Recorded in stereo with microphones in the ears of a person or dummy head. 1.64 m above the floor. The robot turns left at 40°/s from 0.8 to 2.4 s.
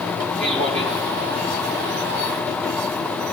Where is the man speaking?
35° right (ahead or behind), 3.5 m; by 1.0 s 45° right (ahead or behind), 3.5 m.